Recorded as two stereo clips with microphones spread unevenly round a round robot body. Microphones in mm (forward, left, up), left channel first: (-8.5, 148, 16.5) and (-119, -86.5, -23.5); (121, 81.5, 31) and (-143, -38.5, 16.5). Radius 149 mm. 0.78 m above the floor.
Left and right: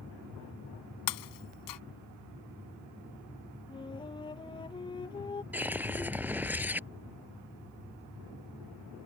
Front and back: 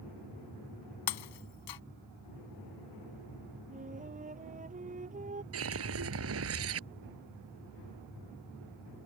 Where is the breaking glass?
35° left.